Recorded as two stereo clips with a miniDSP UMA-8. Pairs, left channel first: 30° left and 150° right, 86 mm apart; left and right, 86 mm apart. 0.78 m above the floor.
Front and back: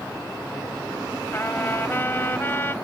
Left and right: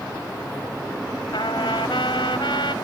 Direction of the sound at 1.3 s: 95° left.